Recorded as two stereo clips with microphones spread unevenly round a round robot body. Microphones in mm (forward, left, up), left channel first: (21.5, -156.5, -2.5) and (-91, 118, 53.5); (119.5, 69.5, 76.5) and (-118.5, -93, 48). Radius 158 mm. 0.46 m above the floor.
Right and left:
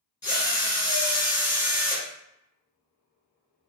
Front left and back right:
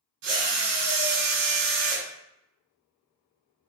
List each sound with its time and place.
0.2 s a drill: 145° right, 1.6 m